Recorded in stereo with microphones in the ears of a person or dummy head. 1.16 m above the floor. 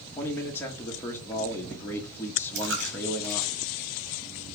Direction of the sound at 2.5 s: 65° right (ahead or behind).